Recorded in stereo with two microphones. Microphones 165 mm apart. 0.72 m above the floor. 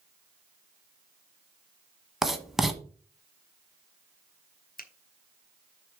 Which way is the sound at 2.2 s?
Centre (ahead or behind).